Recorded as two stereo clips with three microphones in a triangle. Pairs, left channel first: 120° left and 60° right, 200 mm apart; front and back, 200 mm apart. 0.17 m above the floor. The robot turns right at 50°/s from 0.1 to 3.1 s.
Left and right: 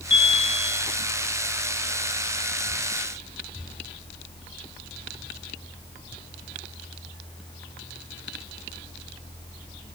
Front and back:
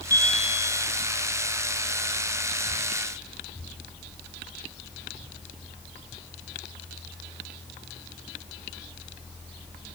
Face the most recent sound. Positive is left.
turn(degrees=-100)